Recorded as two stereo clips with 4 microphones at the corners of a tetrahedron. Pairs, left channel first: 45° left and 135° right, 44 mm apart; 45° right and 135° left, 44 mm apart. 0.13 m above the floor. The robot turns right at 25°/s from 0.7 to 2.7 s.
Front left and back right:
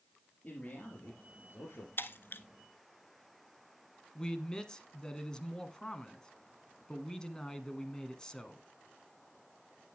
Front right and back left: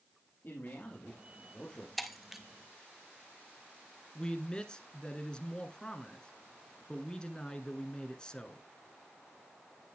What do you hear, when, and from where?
0.4 s a man speaking: 10° right, 4 m; by 1.9 s 20° left, 4 m
2.0 s breaking glass: 40° left, 0.9 m; by 2.4 s 55° left, 0.9 m
4.2 s a man speaking: 5° right, 1.4 m